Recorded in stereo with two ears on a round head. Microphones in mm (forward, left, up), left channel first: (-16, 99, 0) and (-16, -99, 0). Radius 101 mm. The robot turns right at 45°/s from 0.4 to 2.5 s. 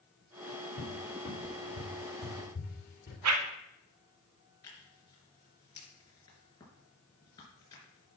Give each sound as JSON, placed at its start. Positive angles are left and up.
{"t": 0.8, "sound": "a cupboard door", "side_deg": 50, "distance_m": 3.0}
{"t": 3.2, "sound": "a whoosh", "side_deg": -80, "distance_m": 0.9}
{"t": 4.6, "sound": "tearing paper", "side_deg": 20, "distance_m": 3.5}